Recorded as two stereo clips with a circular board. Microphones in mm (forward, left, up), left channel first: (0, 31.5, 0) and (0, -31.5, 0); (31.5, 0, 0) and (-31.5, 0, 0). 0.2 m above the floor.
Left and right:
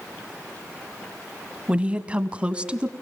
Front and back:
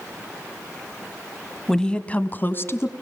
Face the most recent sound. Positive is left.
turn(degrees=-25)